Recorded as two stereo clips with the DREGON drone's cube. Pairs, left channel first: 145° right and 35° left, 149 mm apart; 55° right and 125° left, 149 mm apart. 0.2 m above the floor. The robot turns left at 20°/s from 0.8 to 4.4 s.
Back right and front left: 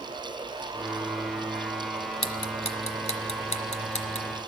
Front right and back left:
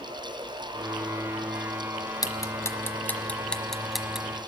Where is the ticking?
110° right, 1.0 m; by 4.4 s 155° right, 1.0 m.